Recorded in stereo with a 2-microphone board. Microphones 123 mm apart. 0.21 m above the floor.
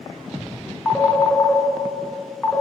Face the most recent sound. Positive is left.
turn(degrees=20)  # may be behind; listen again after turning